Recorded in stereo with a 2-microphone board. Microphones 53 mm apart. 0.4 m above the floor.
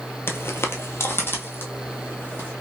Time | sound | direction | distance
0.3 | footsteps | 55° left (ahead or behind) | 0.5 m